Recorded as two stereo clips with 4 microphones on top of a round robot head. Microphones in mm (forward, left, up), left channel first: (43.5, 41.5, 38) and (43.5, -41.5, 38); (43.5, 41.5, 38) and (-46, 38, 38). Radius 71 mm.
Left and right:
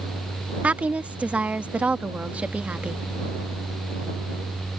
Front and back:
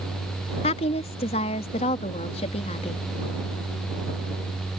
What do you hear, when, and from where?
0.6 s a woman speaking: 15° right